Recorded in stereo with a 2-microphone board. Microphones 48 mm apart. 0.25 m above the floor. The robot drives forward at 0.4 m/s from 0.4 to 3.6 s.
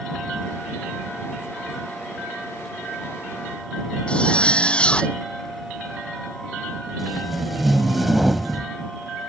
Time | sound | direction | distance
4.1 | a zipper | 20° left (ahead or behind) | ?
7.0 | tape being pulled | 5° right (ahead or behind) | ?